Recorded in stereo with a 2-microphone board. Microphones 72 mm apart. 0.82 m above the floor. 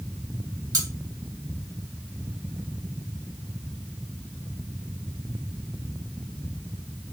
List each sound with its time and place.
0.7 s cutlery clinking: 60° right (ahead or behind), 1.1 m